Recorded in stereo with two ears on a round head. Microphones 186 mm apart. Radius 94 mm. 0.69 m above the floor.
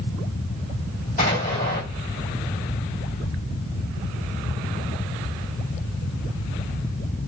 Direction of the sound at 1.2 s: 40° left (ahead or behind).